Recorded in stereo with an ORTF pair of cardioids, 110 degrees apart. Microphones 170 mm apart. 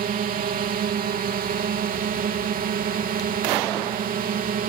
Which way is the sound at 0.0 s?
60° right.